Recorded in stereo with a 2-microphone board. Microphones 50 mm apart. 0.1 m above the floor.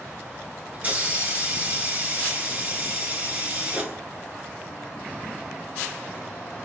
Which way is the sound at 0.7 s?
30° right (ahead or behind).